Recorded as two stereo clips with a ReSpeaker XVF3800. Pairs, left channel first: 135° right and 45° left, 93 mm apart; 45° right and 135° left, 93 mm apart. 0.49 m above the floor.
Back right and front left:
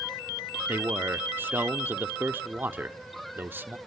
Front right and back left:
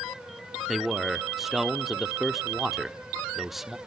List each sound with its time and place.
0.7 s a man speaking: 50° left, 0.8 m